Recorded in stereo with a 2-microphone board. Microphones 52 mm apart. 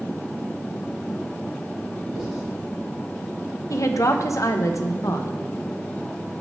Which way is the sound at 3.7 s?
70° left (ahead or behind).